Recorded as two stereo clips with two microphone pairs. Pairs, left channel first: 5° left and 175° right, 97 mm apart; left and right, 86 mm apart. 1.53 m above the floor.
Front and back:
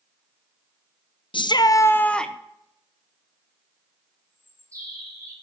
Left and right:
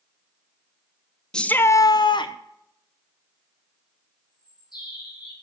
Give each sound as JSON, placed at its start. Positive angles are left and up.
{"t": 1.3, "sound": "a shout", "azimuth_deg": 15, "distance_m": 0.5}
{"t": 4.2, "sound": "a bird", "azimuth_deg": 125, "distance_m": 5.0}